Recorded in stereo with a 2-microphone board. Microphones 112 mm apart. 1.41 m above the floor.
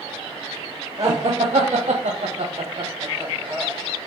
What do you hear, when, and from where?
1.0 s laughter: 55° right (ahead or behind), 0.9 m; by 3.7 s 25° right (ahead or behind), 1.2 m